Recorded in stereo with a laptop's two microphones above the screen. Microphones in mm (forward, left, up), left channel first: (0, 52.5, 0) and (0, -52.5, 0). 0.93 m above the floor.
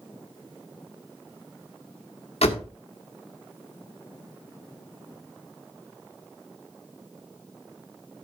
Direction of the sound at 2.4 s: 80° left.